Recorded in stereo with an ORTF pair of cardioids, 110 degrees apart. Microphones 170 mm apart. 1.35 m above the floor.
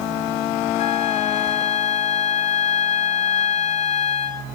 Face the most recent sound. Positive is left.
turn(degrees=45)